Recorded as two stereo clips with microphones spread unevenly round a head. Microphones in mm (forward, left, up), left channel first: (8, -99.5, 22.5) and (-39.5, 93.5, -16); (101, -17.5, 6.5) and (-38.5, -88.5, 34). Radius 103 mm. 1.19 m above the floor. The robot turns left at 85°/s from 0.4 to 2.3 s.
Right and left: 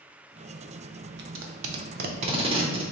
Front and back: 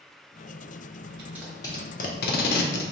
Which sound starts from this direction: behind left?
Tape being pulled, at 1.2 s.